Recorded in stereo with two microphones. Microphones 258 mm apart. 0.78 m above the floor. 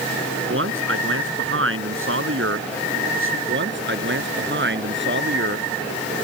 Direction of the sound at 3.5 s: 45° right (ahead or behind).